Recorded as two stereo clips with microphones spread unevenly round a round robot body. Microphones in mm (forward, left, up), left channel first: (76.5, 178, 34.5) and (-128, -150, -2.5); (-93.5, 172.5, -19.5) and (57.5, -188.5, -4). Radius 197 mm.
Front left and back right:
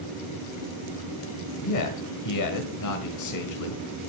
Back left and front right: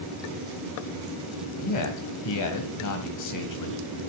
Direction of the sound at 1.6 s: 90° left.